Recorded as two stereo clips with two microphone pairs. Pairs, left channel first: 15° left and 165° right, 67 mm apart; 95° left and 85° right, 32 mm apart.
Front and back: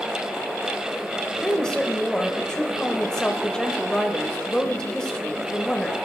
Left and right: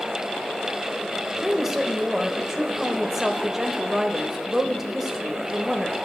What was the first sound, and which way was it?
A woman speaking, 40° right.